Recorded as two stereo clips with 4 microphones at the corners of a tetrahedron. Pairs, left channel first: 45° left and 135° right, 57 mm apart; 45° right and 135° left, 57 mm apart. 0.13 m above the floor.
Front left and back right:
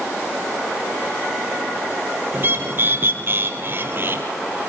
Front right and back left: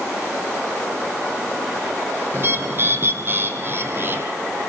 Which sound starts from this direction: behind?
A bird, at 2.3 s.